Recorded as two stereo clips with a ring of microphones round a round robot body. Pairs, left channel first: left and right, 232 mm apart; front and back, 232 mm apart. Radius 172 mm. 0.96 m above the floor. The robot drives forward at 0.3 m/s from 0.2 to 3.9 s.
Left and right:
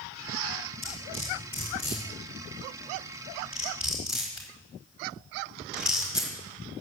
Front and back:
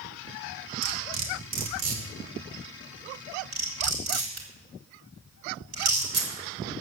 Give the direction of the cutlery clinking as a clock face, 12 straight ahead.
6 o'clock.